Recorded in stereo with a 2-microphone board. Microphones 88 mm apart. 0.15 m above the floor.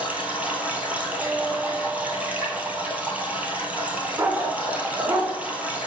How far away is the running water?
About 1.4 m.